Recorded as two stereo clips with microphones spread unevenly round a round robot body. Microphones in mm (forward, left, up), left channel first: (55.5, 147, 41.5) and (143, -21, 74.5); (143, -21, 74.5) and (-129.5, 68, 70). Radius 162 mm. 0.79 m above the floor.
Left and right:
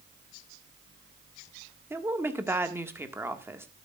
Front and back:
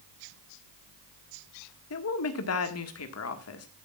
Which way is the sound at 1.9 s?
20° left.